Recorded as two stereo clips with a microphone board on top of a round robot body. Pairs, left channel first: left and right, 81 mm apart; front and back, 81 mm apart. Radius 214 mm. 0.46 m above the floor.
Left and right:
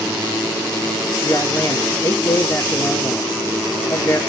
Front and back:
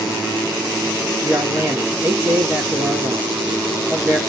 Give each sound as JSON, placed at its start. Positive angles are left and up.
{"t": 1.2, "sound": "a man speaking", "azimuth_deg": 130, "distance_m": 1.2}